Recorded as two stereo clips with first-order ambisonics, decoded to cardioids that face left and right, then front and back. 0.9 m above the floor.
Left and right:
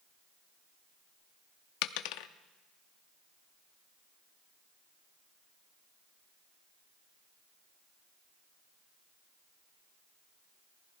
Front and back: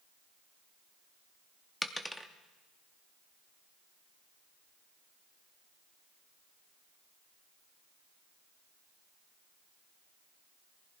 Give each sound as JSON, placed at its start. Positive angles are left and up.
{"t": 1.8, "sound": "a dropped coin", "azimuth_deg": 90, "distance_m": 0.6}